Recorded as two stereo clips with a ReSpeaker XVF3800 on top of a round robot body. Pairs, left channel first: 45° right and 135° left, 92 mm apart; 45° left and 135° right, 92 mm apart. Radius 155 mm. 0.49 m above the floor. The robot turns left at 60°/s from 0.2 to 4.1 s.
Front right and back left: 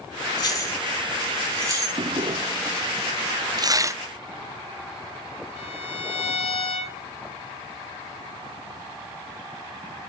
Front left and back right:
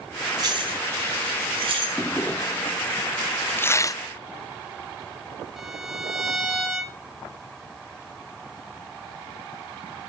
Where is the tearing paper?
105° left, 1.0 m; by 4.0 s 80° left, 1.0 m.